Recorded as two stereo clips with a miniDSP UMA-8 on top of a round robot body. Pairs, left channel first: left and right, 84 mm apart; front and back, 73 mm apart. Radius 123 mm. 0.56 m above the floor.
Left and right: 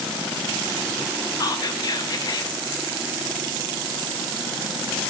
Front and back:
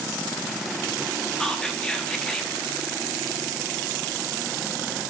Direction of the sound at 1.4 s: 80° left.